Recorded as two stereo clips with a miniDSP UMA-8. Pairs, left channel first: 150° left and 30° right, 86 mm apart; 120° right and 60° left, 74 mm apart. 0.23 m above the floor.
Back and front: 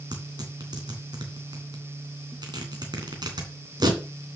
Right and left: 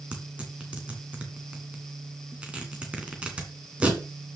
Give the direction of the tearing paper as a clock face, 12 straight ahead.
12 o'clock.